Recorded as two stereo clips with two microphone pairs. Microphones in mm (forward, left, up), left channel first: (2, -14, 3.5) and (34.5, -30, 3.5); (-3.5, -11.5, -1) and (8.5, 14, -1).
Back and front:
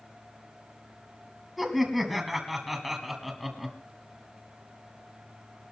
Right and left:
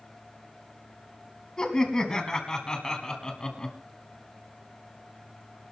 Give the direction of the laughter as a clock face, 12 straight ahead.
4 o'clock.